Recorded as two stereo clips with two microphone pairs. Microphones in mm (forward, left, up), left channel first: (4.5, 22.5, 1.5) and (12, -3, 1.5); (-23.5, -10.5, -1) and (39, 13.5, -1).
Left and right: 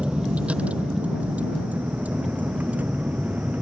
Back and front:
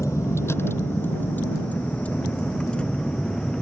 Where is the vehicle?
120° right; by 3.6 s 80° right.